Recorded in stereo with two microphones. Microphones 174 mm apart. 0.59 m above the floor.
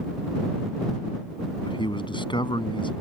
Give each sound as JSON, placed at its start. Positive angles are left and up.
{"t": 1.6, "sound": "a man speaking", "side_deg": 25}